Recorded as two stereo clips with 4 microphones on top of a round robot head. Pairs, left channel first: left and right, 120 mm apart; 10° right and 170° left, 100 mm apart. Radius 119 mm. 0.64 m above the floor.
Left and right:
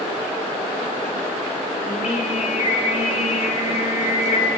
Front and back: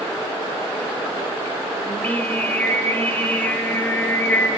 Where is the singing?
65° left, 1.3 m.